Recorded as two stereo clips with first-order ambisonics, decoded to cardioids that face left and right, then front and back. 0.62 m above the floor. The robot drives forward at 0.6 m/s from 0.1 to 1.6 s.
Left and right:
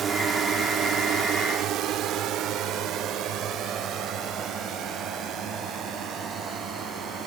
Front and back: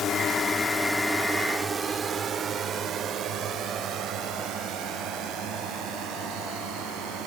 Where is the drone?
40° right; by 7.3 s 145° right.